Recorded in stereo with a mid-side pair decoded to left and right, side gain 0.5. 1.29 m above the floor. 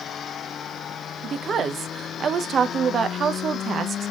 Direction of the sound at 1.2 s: 45° right.